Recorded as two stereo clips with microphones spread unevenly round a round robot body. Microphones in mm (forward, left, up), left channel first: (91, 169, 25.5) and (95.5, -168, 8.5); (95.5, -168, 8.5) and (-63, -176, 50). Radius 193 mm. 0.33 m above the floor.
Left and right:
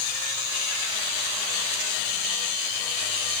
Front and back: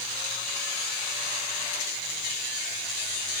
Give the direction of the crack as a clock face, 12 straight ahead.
No crack in this recording.